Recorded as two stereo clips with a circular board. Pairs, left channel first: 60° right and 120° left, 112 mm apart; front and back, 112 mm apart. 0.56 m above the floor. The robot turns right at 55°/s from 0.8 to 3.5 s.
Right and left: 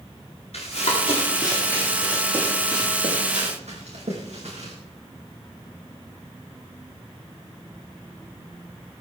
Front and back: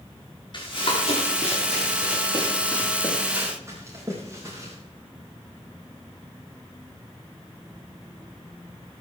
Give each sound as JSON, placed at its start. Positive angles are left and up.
{"t": 0.5, "sound": "running footsteps", "azimuth_deg": -45, "distance_m": 9.0}